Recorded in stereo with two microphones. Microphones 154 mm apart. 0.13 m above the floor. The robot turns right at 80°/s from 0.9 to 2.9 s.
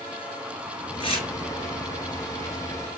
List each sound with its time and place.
1.0 s tearing paper: 35° left (ahead or behind), 2 m; by 1.3 s 45° left (ahead or behind), 2 m